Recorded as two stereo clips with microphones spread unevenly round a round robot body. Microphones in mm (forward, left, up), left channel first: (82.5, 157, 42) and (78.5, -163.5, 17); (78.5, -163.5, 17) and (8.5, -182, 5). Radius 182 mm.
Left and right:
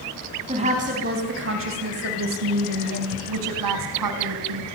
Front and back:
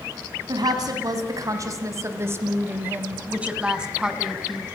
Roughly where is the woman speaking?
Behind.